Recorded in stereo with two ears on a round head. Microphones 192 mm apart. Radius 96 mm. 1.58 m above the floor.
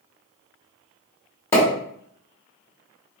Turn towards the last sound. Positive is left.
turn(degrees=10)  # may be behind; listen again after turning